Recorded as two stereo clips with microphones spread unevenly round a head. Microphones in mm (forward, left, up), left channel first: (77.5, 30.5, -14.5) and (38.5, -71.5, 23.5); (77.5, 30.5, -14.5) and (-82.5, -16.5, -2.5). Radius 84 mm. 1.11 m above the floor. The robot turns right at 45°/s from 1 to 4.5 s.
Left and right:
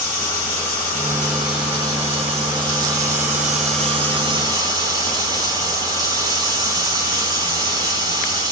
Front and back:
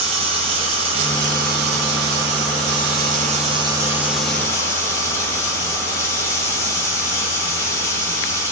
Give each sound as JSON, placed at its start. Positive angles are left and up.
{"t": 0.0, "sound": "running water", "azimuth_deg": 140, "distance_m": 5.5}